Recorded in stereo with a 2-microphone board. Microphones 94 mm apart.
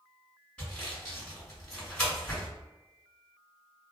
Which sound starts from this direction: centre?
Sawing, at 0.6 s.